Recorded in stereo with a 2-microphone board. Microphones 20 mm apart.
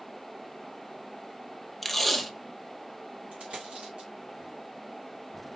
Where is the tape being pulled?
5° left (ahead or behind), 0.9 m.